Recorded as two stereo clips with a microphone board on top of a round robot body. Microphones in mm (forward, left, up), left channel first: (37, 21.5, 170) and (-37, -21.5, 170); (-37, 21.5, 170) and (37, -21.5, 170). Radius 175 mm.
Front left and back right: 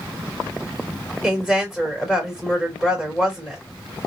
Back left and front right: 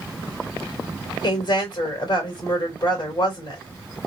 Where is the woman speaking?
120° left, 3 m.